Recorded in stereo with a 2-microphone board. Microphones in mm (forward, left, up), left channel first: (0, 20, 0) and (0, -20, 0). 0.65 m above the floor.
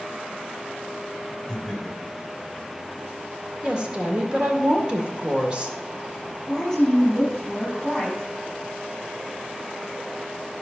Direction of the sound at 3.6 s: 25° right (ahead or behind).